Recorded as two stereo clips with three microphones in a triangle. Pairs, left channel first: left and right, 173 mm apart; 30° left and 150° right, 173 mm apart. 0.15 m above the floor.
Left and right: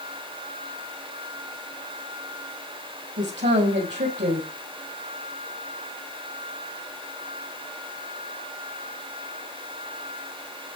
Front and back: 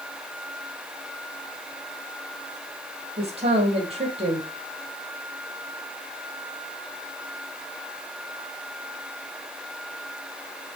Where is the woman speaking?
95° right, 4 m.